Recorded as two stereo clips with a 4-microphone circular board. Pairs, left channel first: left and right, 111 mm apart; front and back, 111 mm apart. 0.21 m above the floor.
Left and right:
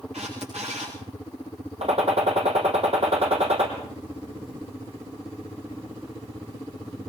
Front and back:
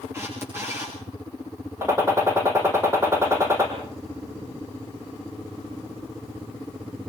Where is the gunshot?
115° right, 4 m.